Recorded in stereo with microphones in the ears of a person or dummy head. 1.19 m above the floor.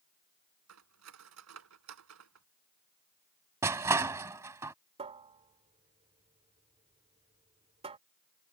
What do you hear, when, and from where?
0.7 s cutlery clinking: 85° right
3.6 s crushing: 15° right (ahead or behind)
5.0 s a cupboard door: 30° right (ahead or behind)